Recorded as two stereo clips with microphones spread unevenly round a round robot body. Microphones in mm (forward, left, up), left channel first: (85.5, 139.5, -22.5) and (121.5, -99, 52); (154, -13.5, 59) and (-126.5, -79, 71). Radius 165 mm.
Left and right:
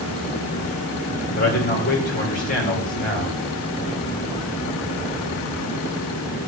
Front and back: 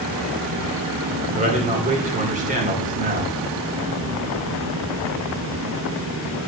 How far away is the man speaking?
About 2 m.